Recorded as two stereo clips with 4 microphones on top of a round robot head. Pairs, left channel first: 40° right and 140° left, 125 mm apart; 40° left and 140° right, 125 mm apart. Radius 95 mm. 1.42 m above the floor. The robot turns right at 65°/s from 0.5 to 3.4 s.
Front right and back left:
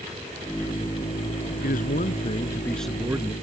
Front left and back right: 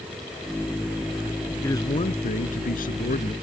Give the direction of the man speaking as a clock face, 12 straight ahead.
1 o'clock.